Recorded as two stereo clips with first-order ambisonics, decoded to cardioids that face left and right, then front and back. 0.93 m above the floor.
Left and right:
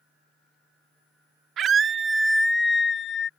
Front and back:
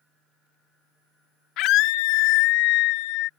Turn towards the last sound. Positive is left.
turn(degrees=30)